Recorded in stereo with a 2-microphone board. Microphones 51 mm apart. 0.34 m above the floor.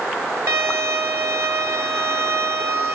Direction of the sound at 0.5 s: 55° right (ahead or behind).